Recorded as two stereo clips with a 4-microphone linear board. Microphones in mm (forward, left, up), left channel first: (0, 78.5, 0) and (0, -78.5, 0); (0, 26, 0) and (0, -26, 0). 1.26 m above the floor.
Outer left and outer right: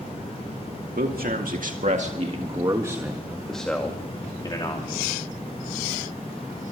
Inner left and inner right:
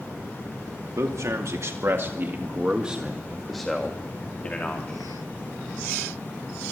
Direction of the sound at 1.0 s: 70° right (ahead or behind).